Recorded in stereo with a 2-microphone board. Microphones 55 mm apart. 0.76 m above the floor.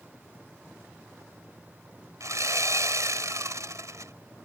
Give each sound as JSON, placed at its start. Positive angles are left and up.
{"t": 2.2, "sound": "sawing", "side_deg": -75}